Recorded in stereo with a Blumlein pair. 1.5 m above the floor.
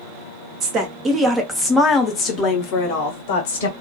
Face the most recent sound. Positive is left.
turn(degrees=55)